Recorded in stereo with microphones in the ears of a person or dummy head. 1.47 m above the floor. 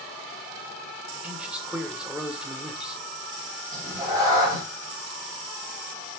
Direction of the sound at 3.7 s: 25° right (ahead or behind).